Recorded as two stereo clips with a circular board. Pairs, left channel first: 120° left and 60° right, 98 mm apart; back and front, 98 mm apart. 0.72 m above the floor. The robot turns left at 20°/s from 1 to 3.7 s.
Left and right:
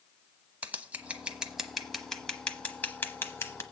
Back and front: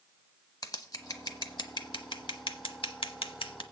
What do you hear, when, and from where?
0.6 s scissors: 135° right, 0.9 m; by 3.6 s 175° left, 0.9 m